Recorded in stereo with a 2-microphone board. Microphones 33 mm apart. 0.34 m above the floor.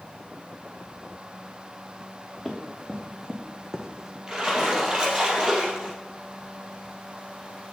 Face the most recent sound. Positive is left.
turn(degrees=-25)  # may be behind; listen again after turning